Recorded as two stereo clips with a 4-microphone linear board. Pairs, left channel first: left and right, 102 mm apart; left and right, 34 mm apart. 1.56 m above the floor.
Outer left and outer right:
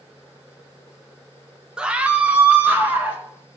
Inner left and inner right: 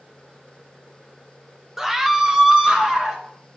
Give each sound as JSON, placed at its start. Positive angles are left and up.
{"t": 1.8, "sound": "a scream", "side_deg": -10, "distance_m": 0.9}